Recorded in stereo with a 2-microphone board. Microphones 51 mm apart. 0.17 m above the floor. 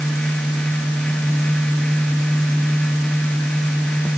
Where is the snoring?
No snoring in this recording.